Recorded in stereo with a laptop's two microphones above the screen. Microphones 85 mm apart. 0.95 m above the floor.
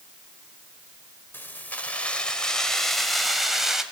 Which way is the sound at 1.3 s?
25° left (ahead or behind).